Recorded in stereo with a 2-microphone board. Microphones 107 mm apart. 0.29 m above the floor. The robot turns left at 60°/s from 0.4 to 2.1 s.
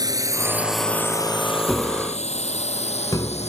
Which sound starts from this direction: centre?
Tapping, at 1.7 s.